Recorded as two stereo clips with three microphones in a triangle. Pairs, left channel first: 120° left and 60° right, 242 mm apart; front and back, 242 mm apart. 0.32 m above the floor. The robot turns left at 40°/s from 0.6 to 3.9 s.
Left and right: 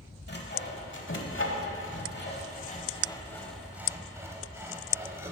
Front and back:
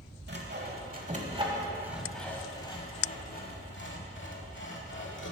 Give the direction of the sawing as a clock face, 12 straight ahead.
7 o'clock.